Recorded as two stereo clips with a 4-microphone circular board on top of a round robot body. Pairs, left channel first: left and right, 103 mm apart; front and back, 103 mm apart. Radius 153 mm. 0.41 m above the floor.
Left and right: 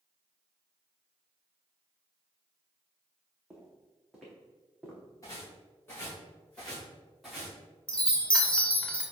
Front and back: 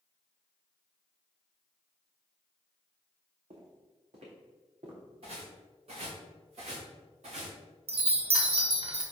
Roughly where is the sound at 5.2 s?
Behind left.